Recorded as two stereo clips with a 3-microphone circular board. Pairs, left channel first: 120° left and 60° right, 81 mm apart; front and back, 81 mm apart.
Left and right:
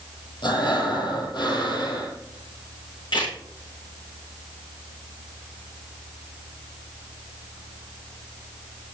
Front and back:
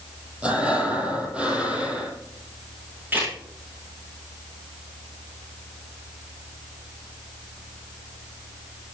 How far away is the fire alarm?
No fire alarm in this recording.